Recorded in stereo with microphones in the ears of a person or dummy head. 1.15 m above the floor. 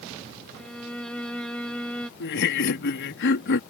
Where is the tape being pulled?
No tape being pulled in this recording.